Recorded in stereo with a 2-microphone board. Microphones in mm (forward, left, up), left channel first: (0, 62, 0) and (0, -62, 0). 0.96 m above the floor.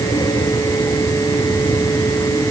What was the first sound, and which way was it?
Only background noise.